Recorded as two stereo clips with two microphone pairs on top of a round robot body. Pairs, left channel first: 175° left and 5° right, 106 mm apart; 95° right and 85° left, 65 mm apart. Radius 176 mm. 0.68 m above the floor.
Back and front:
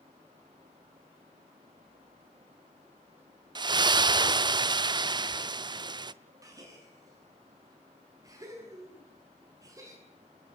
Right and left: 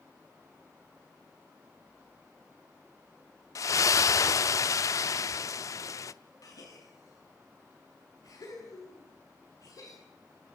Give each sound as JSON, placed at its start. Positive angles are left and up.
{"t": 3.5, "sound": "a splash", "azimuth_deg": -55, "distance_m": 0.7}
{"t": 6.4, "sound": "a gasp", "azimuth_deg": -65, "distance_m": 9.5}